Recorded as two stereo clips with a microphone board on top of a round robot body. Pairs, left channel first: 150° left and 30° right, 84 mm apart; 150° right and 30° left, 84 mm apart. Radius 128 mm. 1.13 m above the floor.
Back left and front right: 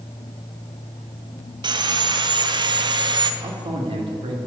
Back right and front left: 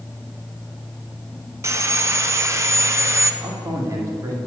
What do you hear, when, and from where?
1.6 s sawing: 20° right, 0.7 m
3.4 s a man speaking: 25° right, 1.7 m